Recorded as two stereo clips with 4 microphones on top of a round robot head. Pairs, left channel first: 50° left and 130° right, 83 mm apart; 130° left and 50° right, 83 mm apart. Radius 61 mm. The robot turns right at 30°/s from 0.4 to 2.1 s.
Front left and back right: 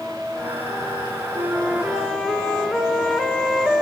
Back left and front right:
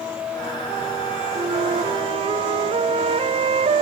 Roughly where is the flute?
Ahead right.